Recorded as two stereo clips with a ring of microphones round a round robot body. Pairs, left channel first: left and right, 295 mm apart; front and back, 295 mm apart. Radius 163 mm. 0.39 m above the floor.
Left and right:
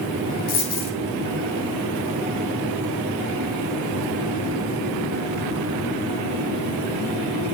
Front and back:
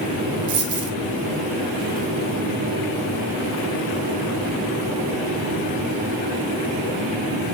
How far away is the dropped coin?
About 1.6 m.